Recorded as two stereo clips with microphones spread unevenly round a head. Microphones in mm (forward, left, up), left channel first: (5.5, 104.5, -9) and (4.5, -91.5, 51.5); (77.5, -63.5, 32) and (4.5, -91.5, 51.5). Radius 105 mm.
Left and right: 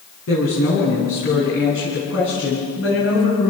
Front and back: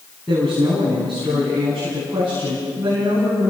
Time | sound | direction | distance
0.3 | a woman speaking | 110° left | 8 m